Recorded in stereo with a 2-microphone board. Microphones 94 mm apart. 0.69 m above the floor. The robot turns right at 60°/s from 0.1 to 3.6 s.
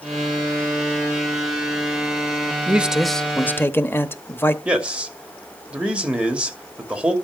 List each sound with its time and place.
2.7 s a man speaking: 25° right, 0.8 m; by 4.5 s 35° left, 0.8 m
4.7 s a man speaking: 10° right (ahead or behind), 2.5 m